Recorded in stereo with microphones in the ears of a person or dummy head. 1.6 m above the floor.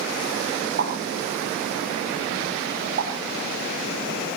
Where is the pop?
50° right (ahead or behind), 5.5 m.